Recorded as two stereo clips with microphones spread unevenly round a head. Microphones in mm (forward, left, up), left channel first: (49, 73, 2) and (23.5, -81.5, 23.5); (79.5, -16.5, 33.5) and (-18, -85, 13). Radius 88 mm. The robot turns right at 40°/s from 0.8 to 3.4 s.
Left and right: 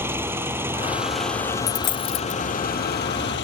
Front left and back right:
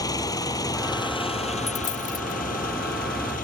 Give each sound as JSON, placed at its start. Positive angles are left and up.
{"t": 0.0, "sound": "an engine running", "azimuth_deg": -25}
{"t": 1.7, "sound": "a dropped coin", "azimuth_deg": 55}